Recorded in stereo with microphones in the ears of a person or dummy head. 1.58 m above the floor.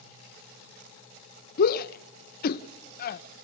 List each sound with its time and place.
1.6 s a shout: 55° left (ahead or behind), 0.6 m